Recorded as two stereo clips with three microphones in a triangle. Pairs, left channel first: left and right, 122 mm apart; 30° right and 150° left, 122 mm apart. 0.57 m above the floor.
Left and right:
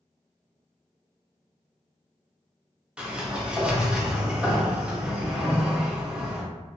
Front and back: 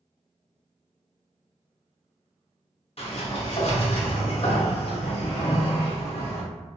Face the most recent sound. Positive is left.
turn(degrees=-10)